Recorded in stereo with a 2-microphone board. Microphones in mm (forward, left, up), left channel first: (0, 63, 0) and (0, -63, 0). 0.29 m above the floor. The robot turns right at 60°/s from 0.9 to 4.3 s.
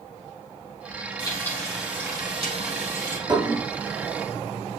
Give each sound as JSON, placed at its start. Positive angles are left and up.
{"t": 1.2, "sound": "frying", "azimuth_deg": 145, "distance_m": 4.0}
{"t": 3.3, "sound": "dishes clattering", "side_deg": -35, "distance_m": 1.7}